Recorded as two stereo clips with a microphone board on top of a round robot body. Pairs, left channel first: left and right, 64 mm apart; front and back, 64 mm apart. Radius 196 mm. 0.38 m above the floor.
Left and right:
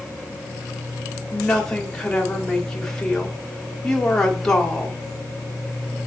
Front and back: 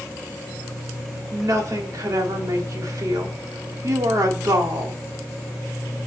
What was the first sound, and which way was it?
A woman speaking, 170° left.